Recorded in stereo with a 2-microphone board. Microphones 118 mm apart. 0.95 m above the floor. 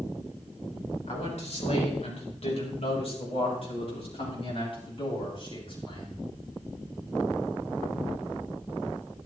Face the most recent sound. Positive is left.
turn(degrees=45)  # may be behind; listen again after turning